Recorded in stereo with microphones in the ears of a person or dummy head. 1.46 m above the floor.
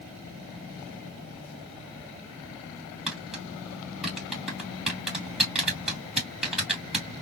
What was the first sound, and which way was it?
Tapping, 5° right (ahead or behind).